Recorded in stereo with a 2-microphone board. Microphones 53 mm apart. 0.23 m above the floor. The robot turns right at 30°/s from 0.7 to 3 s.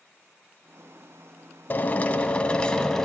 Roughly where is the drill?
Behind left.